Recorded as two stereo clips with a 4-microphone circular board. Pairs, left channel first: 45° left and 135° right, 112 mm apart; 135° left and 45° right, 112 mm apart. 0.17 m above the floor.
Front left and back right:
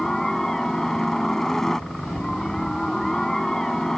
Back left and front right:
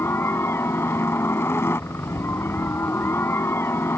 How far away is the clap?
I don't hear a clap.